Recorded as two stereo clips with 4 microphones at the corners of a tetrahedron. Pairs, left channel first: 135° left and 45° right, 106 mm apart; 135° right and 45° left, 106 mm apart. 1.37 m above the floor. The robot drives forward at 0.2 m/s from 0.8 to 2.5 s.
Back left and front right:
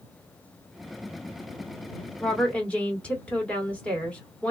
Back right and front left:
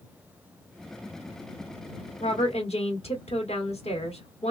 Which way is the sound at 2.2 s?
145° right.